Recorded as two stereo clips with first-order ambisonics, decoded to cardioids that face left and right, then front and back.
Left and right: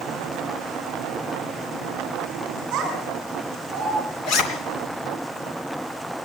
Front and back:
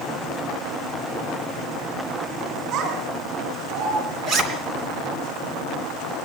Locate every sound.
2.7 s a child speaking: 140° right, 5 m; by 4.0 s 150° right, 4.5 m
4.2 s a zipper: 130° left, 3 m